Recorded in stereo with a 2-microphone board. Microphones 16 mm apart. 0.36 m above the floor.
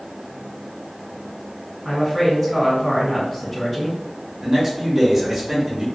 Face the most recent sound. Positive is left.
turn(degrees=-30)  # may be behind; listen again after turning